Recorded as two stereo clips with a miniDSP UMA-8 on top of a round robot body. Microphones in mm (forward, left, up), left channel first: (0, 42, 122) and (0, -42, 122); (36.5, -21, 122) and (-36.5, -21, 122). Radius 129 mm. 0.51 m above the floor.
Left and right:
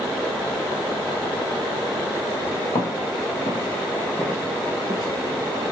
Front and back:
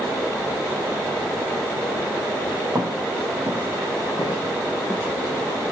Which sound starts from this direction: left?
Footsteps, at 2.8 s.